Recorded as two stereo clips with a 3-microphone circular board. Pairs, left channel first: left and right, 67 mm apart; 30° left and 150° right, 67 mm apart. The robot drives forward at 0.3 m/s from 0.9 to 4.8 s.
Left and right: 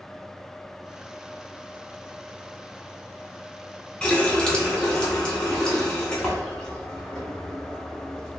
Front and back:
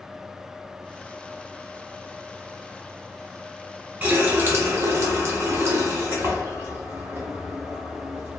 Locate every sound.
4.0 s a running tap: 155° left, 0.5 m; by 8.4 s 165° left, 0.7 m